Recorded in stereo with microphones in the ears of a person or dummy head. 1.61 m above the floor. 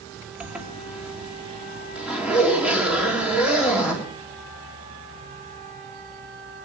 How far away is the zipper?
About 3 m.